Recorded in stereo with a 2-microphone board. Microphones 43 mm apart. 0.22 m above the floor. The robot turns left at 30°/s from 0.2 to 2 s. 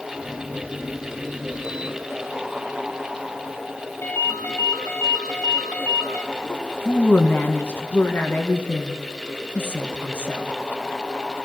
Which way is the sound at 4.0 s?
80° left.